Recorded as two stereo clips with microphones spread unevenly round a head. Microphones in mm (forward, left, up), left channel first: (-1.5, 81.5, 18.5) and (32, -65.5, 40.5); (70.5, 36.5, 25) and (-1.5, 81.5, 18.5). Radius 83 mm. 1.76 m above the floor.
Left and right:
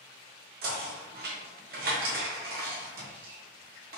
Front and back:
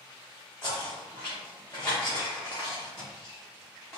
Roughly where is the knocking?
Right.